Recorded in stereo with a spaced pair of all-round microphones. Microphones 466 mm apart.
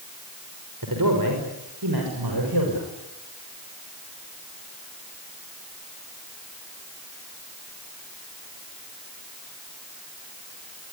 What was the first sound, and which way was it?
A man speaking, 45° right (ahead or behind).